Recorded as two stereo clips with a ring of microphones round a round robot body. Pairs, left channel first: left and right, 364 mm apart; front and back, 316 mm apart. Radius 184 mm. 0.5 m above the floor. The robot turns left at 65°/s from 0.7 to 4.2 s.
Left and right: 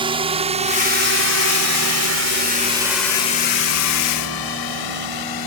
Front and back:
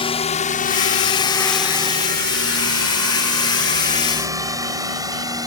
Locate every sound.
0.0 s a drone: 40° right; by 5.5 s 105° left